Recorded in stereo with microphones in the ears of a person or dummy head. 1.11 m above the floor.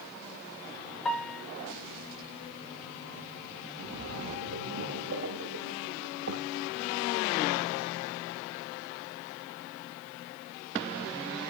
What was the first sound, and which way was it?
A piano, centre (ahead or behind).